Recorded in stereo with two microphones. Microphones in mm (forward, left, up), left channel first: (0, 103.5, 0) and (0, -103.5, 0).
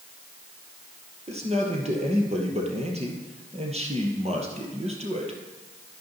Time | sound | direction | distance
1.3 | a man speaking | 30° right (ahead or behind) | 2.5 m